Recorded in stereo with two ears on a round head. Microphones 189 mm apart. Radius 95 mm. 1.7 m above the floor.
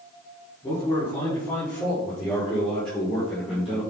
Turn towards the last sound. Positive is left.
turn(degrees=0)  # may be behind; listen again after turning